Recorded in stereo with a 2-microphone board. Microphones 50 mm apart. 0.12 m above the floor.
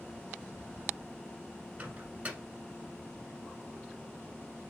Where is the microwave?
25° right (ahead or behind), 1.4 m.